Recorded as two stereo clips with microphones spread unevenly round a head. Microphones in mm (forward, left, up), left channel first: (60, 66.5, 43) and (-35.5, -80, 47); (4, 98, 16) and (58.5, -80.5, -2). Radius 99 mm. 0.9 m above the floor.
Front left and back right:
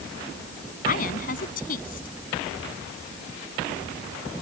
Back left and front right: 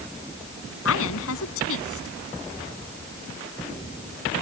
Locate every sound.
0.8 s a woman speaking: 105° left